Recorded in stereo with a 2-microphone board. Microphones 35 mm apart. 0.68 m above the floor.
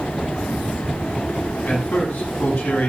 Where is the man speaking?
70° left (ahead or behind), 6 m.